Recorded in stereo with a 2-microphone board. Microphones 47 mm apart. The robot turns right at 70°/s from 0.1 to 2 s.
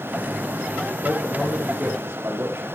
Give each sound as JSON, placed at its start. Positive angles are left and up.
{"t": 1.0, "sound": "a man speaking", "azimuth_deg": 170, "distance_m": 6.5}